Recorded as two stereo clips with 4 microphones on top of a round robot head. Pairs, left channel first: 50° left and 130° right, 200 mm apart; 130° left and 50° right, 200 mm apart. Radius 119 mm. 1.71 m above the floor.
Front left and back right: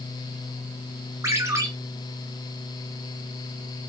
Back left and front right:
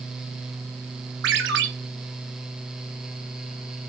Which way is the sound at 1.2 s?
60° right.